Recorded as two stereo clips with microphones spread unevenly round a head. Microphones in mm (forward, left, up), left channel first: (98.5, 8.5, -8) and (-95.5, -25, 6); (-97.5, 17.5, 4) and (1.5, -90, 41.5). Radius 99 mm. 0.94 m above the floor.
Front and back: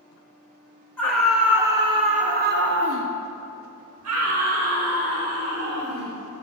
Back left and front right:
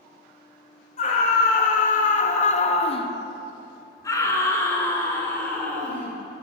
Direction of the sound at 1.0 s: 90° left.